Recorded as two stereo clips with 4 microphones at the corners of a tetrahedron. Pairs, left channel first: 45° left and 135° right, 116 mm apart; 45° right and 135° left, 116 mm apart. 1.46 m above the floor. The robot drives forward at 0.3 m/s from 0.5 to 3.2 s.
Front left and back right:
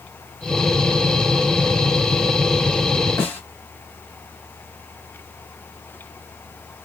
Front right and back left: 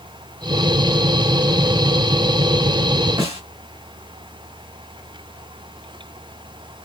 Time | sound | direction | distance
3.2 | a snare drum | 110° left | 1.5 m